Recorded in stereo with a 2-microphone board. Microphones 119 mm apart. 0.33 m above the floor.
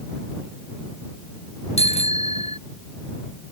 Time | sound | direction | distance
1.8 | a bicycle bell | 70° left (ahead or behind) | ?